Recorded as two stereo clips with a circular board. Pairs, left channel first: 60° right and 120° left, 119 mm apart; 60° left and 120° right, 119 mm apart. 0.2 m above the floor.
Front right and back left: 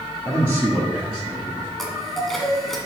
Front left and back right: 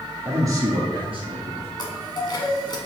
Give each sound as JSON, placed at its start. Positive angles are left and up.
{"t": 0.2, "sound": "a man speaking", "azimuth_deg": 175, "distance_m": 1.7}
{"t": 1.8, "sound": "a chime", "azimuth_deg": 25, "distance_m": 1.2}